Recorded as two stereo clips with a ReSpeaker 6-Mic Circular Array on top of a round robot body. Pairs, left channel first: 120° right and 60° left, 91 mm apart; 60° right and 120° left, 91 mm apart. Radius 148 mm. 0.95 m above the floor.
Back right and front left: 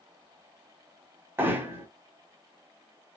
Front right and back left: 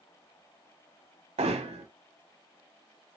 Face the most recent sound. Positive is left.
turn(degrees=130)